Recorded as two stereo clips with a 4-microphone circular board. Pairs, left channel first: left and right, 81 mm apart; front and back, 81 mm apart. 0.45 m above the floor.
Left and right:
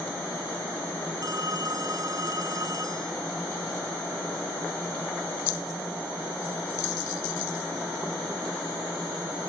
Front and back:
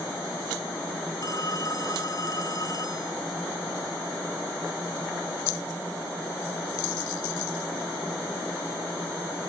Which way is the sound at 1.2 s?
45° right.